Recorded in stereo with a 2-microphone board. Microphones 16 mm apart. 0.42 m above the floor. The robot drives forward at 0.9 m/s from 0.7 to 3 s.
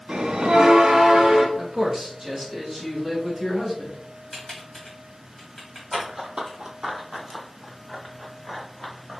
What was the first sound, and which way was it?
A bell, 65° right (ahead or behind).